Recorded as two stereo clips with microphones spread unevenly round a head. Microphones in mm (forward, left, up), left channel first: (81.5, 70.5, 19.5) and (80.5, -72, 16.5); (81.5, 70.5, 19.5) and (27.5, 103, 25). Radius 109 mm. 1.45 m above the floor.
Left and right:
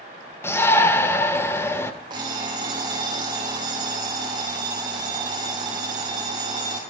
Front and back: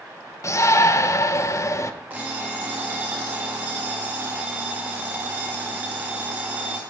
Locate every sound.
0.4 s a shout: 15° left, 1.3 m
2.1 s an alarm clock: 150° right, 0.9 m